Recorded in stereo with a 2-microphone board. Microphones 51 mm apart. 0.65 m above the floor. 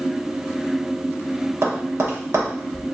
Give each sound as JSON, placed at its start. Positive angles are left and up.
{"t": 1.6, "sound": "tapping", "side_deg": -60, "distance_m": 0.9}